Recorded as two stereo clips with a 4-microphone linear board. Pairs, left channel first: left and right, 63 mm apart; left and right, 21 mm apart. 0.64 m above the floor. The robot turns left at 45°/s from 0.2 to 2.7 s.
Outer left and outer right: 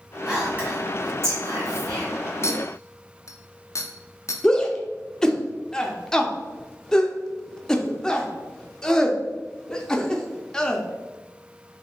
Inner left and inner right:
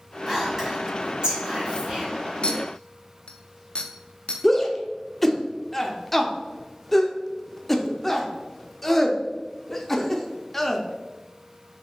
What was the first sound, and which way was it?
Whispering, 10° right (ahead or behind).